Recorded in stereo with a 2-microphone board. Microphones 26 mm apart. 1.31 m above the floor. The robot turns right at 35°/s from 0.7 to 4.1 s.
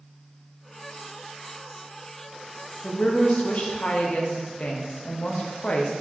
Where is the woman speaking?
70° left, 0.6 m; by 5.9 s 115° left, 0.6 m.